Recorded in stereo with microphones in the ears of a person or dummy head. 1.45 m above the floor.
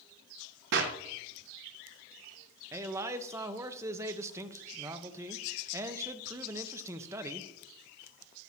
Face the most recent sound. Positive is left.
turn(degrees=-20)  # may be behind; listen again after turning